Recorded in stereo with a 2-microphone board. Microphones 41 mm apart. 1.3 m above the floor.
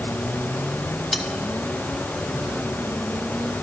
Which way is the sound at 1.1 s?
15° left (ahead or behind).